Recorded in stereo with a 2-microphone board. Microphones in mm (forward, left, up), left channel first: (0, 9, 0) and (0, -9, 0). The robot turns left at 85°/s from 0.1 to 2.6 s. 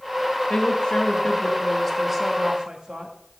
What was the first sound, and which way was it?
A woman speaking, 130° left.